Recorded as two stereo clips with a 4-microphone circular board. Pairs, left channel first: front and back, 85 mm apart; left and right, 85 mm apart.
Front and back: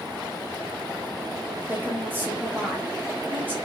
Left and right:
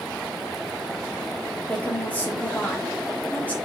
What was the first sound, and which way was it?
A woman speaking, 140° left.